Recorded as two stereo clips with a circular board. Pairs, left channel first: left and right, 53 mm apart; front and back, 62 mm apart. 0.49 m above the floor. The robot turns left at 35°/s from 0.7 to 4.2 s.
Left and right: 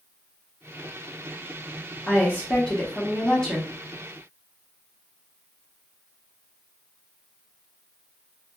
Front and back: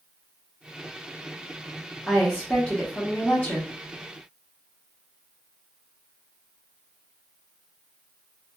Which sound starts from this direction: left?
A woman speaking, at 2.1 s.